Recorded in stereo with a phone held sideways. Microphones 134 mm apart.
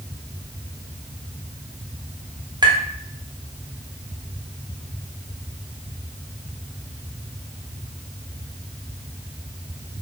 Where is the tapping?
30° right (ahead or behind), 0.8 m.